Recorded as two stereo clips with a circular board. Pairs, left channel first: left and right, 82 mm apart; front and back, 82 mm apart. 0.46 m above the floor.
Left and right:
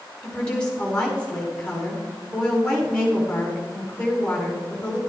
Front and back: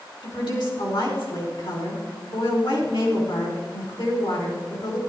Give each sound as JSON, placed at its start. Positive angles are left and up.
{"t": 0.2, "sound": "a woman speaking", "azimuth_deg": 15, "distance_m": 4.5}